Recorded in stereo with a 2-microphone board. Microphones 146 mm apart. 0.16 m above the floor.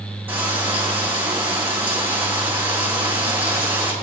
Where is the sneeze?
I don't hear a sneeze.